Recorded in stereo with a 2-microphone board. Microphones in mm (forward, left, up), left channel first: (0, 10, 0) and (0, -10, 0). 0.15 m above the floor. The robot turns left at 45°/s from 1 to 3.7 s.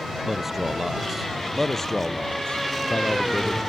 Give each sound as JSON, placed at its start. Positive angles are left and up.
{"t": 0.2, "sound": "a man speaking", "azimuth_deg": -165}